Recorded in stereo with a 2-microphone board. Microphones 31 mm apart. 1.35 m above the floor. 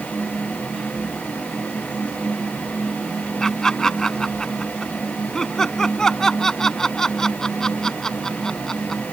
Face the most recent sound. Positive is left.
turn(degrees=20)  # may be behind; listen again after turning